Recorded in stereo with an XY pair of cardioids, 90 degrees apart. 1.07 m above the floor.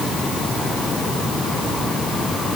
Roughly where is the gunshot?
No gunshot in this recording.